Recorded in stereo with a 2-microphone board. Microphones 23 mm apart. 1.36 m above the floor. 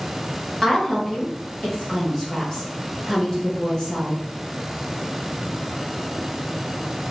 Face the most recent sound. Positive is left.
turn(degrees=20)  # may be behind; listen again after turning